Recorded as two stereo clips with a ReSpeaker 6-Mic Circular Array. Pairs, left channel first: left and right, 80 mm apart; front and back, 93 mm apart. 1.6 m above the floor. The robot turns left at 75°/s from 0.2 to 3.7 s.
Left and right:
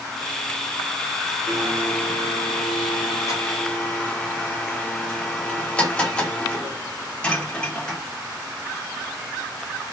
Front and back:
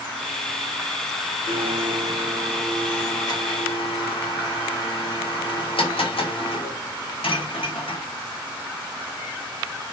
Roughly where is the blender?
Behind.